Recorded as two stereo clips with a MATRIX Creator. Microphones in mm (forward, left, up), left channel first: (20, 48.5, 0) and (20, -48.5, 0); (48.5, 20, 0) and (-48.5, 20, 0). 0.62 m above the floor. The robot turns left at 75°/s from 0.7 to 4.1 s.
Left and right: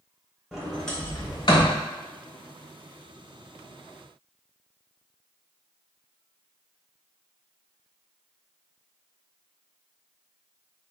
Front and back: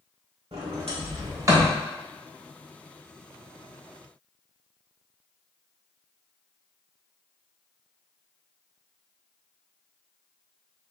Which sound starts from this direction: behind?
A sliding door, at 0.5 s.